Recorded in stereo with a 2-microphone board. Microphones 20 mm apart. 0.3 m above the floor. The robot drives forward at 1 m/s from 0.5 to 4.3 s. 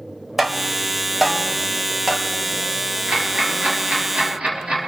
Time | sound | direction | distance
0.4 | tapping | 10° right (ahead or behind) | 1.2 m
3.1 | ticking | 80° right | 5 m